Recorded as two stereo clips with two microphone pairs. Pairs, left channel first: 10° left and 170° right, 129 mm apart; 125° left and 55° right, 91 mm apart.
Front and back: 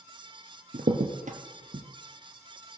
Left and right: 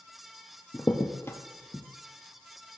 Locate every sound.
0.7 s a crack: 175° right, 1.6 m